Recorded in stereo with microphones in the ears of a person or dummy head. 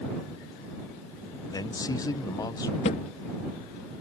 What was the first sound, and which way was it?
A man speaking, 20° left (ahead or behind).